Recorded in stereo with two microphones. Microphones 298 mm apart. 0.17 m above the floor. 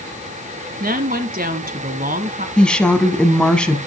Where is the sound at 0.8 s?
30° right (ahead or behind), 1.6 m.